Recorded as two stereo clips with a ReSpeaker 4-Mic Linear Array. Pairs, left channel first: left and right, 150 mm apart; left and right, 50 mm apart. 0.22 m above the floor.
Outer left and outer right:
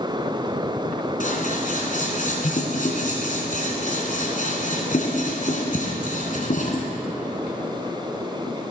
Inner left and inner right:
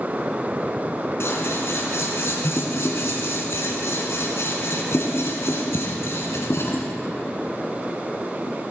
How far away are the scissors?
About 1.6 m.